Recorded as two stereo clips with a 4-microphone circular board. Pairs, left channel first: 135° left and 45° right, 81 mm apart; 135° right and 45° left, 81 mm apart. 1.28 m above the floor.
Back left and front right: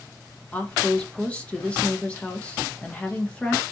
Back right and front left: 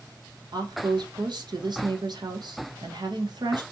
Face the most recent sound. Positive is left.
turn(degrees=65)